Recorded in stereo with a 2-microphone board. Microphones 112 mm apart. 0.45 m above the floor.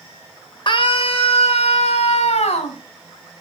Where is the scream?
45° left (ahead or behind), 1.6 m; by 2.8 s 75° left (ahead or behind), 3.5 m.